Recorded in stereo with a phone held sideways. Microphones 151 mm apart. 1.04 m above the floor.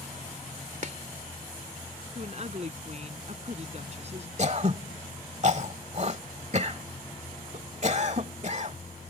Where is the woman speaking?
45° right (ahead or behind).